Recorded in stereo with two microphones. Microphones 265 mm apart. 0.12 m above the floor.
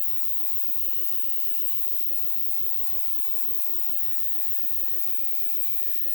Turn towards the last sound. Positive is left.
turn(degrees=30)  # may be behind; listen again after turning